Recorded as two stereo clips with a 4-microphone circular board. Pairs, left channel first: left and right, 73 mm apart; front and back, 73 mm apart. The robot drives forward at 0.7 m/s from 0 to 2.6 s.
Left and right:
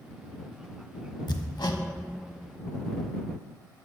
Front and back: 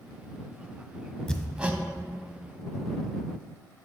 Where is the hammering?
75° left, 0.5 m; by 1.8 s 115° left, 0.6 m.